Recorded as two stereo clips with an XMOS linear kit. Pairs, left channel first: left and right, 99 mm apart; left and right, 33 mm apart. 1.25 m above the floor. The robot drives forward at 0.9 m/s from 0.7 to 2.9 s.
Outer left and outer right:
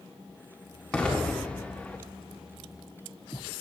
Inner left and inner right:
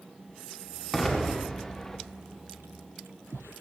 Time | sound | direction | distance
0.9 | an explosion | 10° left (ahead or behind) | 2 m